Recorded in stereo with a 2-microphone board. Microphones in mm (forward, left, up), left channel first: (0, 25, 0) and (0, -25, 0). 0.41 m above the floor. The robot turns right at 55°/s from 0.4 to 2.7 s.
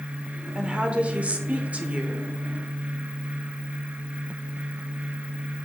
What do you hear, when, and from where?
0.6 s a woman speaking: 15° right (ahead or behind), 0.8 m; by 2.3 s 20° right (ahead or behind), 0.8 m